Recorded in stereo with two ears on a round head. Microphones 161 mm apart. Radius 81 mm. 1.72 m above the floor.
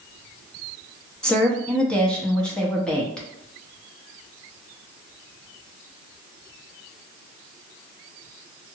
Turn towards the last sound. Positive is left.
turn(degrees=5)  # may be behind; listen again after turning